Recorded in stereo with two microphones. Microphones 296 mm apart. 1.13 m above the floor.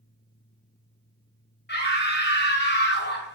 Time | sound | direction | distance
1.7 | a scream | 35° left (ahead or behind) | 0.8 m